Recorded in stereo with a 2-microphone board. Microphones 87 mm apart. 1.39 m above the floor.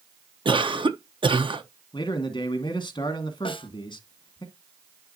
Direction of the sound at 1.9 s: 60° left (ahead or behind).